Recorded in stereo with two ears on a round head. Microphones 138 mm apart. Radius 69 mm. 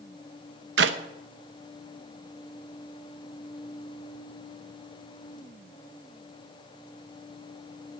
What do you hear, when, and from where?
0.8 s a clap: 85° right, 0.9 m